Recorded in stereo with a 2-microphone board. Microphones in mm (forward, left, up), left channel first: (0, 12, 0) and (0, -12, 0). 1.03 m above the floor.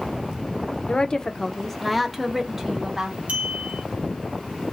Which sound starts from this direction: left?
A woman speaking, at 0.9 s.